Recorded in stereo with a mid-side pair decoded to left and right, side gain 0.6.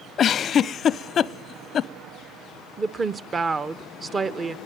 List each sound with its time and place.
0.2 s a giggle: 40° left, 0.6 m
2.8 s a woman speaking: 30° right, 0.9 m